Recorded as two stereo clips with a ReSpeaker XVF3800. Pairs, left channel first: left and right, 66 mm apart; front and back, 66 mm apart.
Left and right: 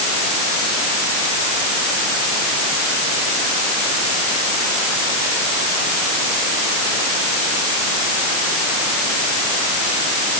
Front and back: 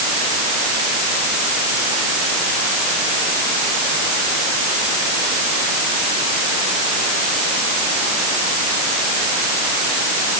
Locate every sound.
Only background noise.